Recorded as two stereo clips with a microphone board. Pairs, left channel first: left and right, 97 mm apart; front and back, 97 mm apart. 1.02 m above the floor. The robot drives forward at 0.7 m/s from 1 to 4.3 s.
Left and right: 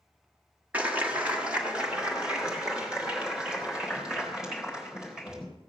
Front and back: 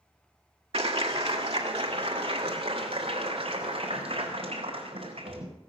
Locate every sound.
0.7 s a clap: 165° right, 1.7 m; by 5.5 s 175° right, 4 m